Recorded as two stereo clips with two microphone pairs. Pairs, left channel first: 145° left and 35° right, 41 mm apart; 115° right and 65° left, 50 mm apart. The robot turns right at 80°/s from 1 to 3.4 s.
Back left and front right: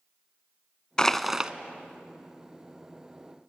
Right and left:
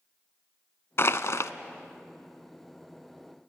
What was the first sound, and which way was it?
Crushing, 140° right.